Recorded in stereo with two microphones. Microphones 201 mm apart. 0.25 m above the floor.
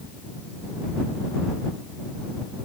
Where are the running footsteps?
No running footsteps in this recording.